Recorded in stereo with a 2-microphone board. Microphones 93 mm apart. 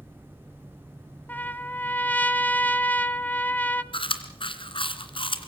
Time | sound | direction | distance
1.3 | a trumpet | 20° left (ahead or behind) | 0.8 m
3.9 | chewing | 70° left (ahead or behind) | 2 m